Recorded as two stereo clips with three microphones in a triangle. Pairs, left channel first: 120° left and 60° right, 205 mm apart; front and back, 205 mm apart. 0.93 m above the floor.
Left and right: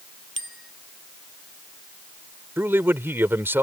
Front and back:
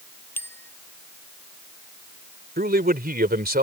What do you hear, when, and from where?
0.4 s a bicycle bell: 80° right
2.6 s a man speaking: 140° right